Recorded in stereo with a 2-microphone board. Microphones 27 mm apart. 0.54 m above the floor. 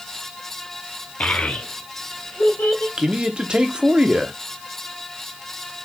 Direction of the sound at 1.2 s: 55° left (ahead or behind).